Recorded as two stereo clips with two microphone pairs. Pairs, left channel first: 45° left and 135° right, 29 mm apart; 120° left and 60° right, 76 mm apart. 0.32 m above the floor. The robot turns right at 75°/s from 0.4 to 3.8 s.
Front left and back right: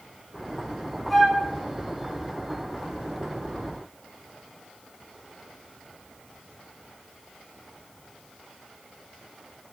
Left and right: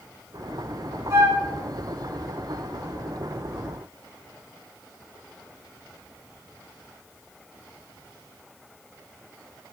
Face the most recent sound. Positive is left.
turn(degrees=160)